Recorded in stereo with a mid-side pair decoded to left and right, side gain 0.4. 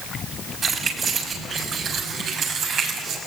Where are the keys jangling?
50° right, 7 m; by 3.2 s 70° right, 7.5 m.